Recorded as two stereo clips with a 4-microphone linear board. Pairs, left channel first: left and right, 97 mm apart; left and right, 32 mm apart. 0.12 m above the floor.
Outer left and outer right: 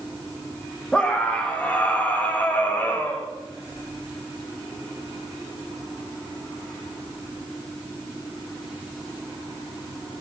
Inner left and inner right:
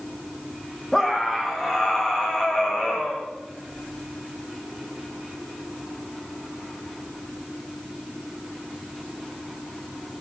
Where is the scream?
10° left (ahead or behind), 7.5 m; by 3.3 s 20° left (ahead or behind), 8.5 m.